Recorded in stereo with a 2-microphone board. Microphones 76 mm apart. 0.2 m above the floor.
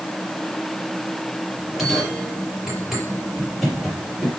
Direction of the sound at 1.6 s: 5° right (ahead or behind).